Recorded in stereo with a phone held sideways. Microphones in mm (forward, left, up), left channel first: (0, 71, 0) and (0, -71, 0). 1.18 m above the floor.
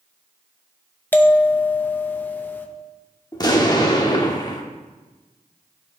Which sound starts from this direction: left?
An explosion, at 3.3 s.